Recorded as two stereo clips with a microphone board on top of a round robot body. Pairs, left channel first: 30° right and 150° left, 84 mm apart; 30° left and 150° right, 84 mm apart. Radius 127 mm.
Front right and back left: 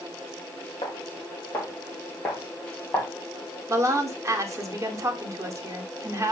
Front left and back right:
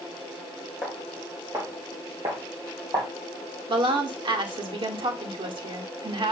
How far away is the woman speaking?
About 2 m.